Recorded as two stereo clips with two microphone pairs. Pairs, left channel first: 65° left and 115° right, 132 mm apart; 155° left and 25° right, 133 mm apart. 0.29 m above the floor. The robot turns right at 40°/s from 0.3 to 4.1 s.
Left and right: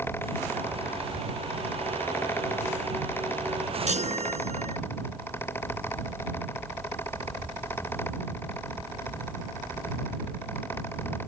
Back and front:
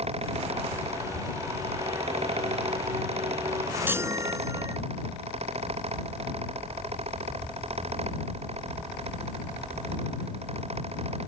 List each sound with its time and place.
3.9 s a chime: 100° right; by 4.8 s 90° right